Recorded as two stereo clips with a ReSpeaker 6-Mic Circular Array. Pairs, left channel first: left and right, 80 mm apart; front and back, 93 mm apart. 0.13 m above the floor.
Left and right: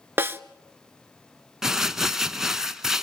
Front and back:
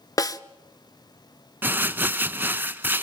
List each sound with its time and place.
0.2 s a snare drum: 35° right, 0.7 m
1.6 s crumpling: 165° right, 0.8 m